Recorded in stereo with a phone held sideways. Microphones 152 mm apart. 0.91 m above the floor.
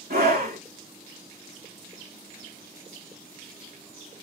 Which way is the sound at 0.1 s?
75° right (ahead or behind).